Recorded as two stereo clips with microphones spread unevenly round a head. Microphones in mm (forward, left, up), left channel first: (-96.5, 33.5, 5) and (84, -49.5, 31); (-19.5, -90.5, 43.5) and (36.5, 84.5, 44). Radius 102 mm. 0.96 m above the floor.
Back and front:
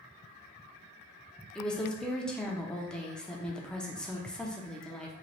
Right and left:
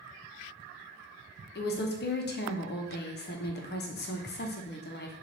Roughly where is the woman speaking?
Behind right.